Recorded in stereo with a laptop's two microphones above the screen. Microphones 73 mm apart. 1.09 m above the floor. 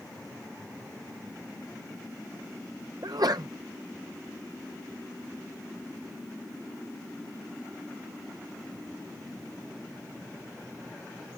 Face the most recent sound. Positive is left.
turn(degrees=-65)  # may be behind; listen again after turning